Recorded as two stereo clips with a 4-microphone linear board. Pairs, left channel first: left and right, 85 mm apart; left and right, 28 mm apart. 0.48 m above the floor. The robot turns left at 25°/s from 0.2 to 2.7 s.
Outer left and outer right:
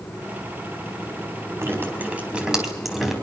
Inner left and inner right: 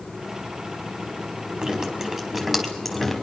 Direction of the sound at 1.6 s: 30° right (ahead or behind).